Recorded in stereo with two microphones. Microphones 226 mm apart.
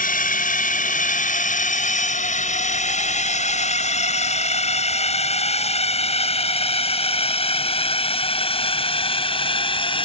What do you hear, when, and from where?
0.0 s a drone: 35° left (ahead or behind); by 10.1 s 25° left (ahead or behind)